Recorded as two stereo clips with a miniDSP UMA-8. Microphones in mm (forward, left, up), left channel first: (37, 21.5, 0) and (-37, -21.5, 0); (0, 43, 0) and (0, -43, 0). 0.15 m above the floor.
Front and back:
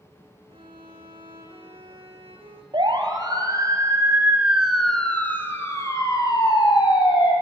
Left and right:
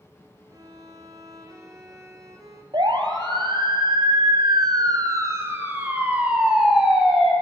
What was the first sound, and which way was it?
A violin, 145° right.